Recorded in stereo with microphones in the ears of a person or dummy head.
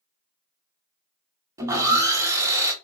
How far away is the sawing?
About 0.8 m.